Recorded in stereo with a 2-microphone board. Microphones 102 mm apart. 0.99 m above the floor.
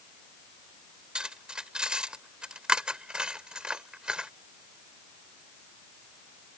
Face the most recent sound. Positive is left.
turn(degrees=-10)  # may be behind; listen again after turning